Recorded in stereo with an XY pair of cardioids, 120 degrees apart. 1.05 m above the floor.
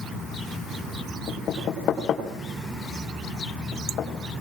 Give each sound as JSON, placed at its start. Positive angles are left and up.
{"t": 1.3, "sound": "knocking", "azimuth_deg": 50, "distance_m": 3.5}